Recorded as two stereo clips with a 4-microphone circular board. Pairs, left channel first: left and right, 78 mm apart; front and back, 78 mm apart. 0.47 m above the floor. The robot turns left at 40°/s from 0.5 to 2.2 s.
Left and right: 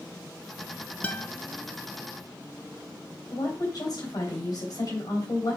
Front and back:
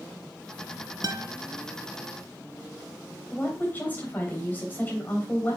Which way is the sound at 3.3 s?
65° left.